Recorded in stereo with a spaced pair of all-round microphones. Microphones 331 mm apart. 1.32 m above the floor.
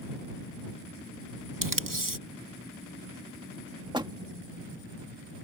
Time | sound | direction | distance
1.6 | tape being pulled | 80° right | ?
3.9 | a door slam | 15° right (ahead or behind) | ?